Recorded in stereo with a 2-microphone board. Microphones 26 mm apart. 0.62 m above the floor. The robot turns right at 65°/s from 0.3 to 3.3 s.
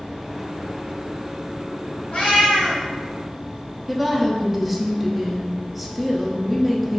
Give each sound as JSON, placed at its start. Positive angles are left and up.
{"t": 2.1, "sound": "a cat meowing", "azimuth_deg": 120, "distance_m": 1.7}
{"t": 3.9, "sound": "a woman speaking", "side_deg": -5, "distance_m": 0.6}